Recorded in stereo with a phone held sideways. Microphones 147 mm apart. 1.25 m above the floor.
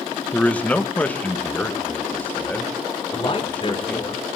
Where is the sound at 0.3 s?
10° left (ahead or behind), 1.4 m.